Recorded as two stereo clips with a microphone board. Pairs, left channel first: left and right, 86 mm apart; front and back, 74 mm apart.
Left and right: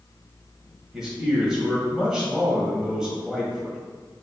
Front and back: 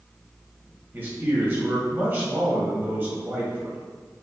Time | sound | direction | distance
0.9 | a man speaking | 165° right | 1.6 m